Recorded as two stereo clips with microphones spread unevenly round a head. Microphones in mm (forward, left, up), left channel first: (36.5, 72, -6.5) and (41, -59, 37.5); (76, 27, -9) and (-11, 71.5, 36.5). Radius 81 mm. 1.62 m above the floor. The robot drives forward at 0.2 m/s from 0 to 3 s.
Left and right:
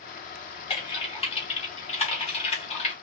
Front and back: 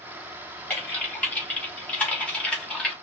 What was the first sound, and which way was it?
Typing on a keyboard, 45° left.